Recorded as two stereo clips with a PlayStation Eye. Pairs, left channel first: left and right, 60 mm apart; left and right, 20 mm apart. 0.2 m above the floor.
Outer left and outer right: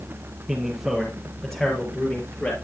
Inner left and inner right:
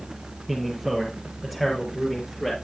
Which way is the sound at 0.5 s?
10° right (ahead or behind).